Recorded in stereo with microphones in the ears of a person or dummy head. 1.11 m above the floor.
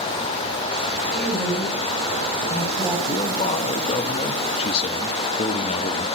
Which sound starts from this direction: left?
A man speaking, at 3.1 s.